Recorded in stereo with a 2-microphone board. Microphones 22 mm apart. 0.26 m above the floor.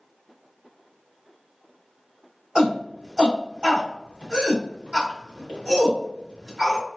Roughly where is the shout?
Right.